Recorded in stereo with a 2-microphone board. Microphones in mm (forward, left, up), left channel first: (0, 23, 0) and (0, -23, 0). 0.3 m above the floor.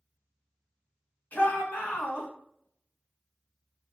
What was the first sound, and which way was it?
A shout, 50° left (ahead or behind).